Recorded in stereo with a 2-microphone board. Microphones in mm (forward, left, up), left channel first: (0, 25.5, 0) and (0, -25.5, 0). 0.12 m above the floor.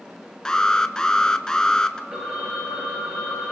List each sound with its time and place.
0.5 s an alarm: 15° left (ahead or behind), 0.7 m
2.1 s a phone ringing: 30° right (ahead or behind), 5 m